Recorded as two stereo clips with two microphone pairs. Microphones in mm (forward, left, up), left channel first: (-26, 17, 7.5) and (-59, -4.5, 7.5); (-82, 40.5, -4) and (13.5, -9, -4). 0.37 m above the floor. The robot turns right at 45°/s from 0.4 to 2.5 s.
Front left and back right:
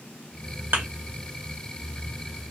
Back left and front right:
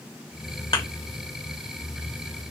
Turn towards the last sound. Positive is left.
turn(degrees=-95)